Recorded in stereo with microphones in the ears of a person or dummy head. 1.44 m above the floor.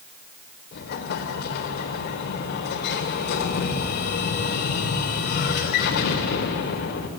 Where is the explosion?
45° left (ahead or behind), 1.6 m.